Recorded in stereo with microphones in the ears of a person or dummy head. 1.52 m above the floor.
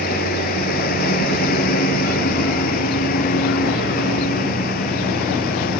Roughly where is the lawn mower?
Left.